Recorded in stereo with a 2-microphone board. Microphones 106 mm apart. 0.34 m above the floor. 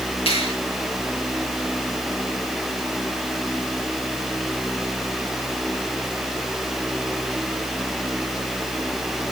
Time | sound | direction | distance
0.3 | a finger snap | 65° left (ahead or behind) | 5.5 m